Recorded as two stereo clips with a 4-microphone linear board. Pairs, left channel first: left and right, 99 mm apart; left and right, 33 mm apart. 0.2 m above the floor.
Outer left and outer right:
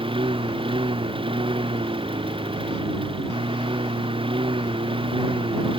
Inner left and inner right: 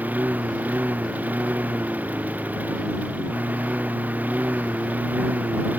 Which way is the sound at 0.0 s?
60° right (ahead or behind).